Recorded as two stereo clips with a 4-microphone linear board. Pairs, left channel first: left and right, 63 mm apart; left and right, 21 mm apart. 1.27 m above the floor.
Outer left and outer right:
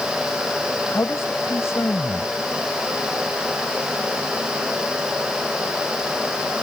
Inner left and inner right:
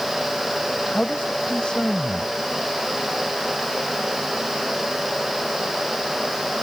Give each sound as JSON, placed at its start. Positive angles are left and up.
{"t": 0.9, "sound": "a man speaking", "side_deg": 45}